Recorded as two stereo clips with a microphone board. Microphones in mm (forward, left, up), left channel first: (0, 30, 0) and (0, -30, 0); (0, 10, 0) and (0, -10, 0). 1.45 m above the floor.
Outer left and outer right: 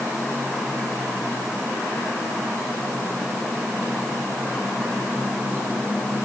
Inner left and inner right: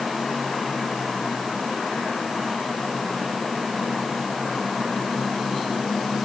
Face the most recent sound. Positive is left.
No sound to turn to.